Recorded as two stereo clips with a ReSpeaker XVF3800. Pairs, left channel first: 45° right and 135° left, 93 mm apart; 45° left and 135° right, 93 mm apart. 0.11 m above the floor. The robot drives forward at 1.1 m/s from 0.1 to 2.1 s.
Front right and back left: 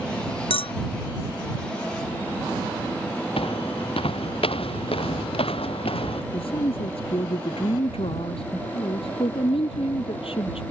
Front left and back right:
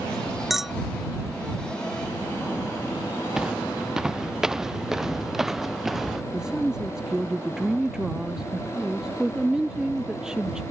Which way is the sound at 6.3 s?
50° right.